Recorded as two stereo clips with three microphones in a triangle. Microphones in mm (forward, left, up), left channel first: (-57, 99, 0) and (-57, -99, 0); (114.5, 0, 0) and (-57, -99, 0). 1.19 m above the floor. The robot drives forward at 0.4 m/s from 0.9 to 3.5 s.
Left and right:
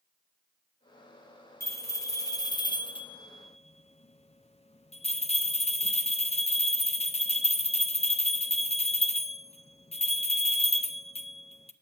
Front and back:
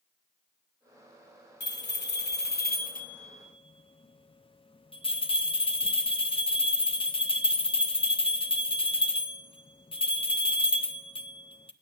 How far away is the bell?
About 1.0 m.